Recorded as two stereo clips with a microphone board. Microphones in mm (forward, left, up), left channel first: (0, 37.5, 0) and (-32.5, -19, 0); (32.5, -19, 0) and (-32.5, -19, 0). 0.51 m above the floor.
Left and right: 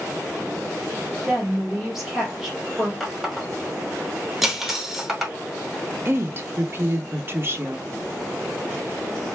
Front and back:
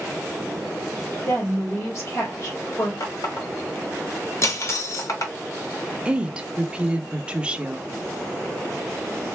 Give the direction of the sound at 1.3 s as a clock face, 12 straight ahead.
1 o'clock.